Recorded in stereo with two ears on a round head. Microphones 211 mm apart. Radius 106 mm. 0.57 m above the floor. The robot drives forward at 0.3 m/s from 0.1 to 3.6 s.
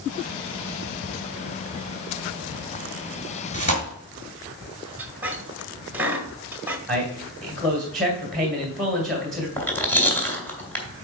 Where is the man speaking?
Centre (ahead or behind), 2 m.